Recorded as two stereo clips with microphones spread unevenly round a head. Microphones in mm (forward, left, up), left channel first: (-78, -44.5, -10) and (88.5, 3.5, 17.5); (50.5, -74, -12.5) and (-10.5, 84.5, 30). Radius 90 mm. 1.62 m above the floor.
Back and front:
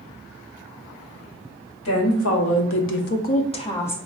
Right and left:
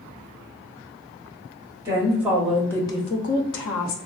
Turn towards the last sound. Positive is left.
turn(degrees=-80)